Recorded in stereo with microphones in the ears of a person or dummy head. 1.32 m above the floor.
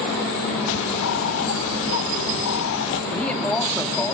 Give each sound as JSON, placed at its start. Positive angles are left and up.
{"t": 0.7, "sound": "a bird", "side_deg": 65, "distance_m": 0.6}
{"t": 3.1, "sound": "a man speaking", "side_deg": 10, "distance_m": 2.5}